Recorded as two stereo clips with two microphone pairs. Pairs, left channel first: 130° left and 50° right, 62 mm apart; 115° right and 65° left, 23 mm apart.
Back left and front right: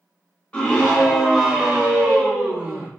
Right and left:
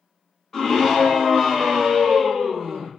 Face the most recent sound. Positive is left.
turn(degrees=-15)